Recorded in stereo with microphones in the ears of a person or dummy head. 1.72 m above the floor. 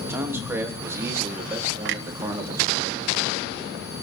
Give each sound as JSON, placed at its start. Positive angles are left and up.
{"t": 0.1, "sound": "a man speaking", "side_deg": -10, "distance_m": 3.0}
{"t": 1.9, "sound": "a clunk", "side_deg": -65, "distance_m": 0.8}